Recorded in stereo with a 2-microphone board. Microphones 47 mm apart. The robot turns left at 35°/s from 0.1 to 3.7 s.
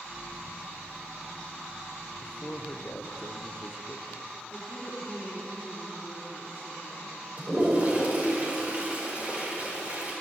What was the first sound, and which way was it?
A man speaking, 140° left.